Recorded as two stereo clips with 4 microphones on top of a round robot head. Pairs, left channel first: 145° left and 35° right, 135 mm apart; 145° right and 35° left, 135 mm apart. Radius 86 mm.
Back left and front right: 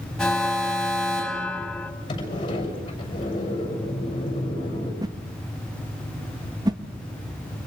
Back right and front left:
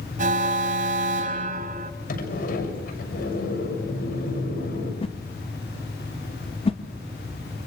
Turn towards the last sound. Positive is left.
turn(degrees=-95)